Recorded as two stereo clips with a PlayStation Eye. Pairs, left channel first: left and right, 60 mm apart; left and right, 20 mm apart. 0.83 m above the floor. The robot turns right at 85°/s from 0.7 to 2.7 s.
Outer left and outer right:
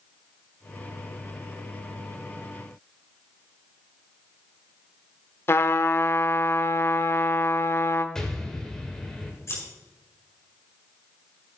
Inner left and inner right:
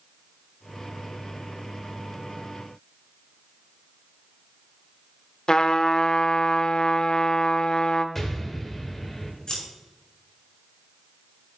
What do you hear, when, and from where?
5.5 s a trumpet: 45° left (ahead or behind), 0.7 m
8.2 s an explosion: 10° left (ahead or behind), 1.7 m
9.5 s scissors: 45° left (ahead or behind), 5.5 m